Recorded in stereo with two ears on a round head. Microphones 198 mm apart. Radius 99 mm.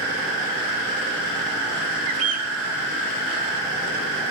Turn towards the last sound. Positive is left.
turn(degrees=-75)  # may be behind; listen again after turning